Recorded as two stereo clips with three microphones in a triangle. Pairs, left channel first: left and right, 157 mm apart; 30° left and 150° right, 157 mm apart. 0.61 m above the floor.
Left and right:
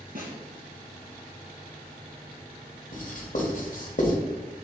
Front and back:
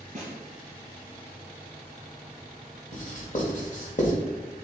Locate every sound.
0.1 s a snare drum: 110° right, 3 m
2.9 s writing: 60° left, 1.7 m